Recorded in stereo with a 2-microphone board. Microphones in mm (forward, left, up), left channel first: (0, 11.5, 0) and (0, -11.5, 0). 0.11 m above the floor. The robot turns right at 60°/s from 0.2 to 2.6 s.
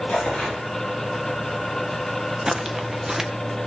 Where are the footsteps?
25° right (ahead or behind), 1.5 m; by 3.3 s 15° right (ahead or behind), 1.5 m.